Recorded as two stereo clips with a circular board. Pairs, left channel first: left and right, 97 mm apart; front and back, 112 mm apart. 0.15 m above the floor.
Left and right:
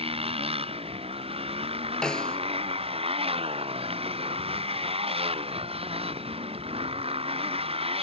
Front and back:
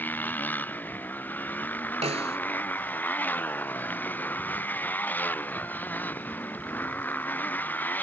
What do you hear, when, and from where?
0.0 s a motorcycle: 75° right
2.0 s a snare drum: 170° left